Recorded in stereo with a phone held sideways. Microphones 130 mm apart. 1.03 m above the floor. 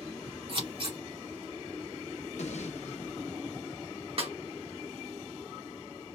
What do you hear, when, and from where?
0.5 s scissors: 50° right (ahead or behind), 2 m
2.4 s an explosion: 65° left (ahead or behind), 0.8 m
4.2 s a snare drum: 50° right (ahead or behind), 1.0 m